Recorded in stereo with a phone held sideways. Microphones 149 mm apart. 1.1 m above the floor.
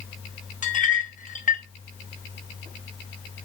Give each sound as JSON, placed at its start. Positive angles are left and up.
{"t": 0.6, "sound": "a clink", "side_deg": 60, "distance_m": 0.8}